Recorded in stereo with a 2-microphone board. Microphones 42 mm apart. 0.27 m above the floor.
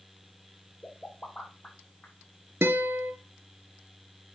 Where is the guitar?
80° right, 1.8 m.